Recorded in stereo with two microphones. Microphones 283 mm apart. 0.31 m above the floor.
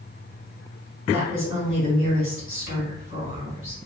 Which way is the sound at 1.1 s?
45° left (ahead or behind).